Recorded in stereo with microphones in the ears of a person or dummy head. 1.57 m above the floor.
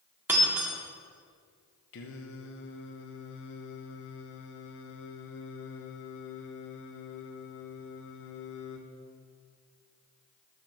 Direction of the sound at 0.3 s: 15° right (ahead or behind).